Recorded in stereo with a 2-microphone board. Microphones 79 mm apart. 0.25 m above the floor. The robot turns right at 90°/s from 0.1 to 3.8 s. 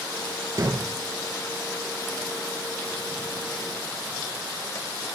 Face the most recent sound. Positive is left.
turn(degrees=30)  # may be behind; listen again after turning